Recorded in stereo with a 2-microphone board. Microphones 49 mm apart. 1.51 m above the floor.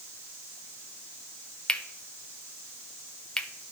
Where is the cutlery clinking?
15° left (ahead or behind), 0.6 m.